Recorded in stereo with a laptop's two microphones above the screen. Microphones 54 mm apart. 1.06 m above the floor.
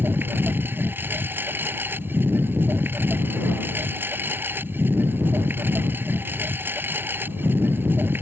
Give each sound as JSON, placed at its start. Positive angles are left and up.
{"t": 0.0, "sound": "a lawn mower", "side_deg": -35}